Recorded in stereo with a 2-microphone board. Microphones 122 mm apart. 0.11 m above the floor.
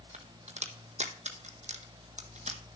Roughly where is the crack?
Right.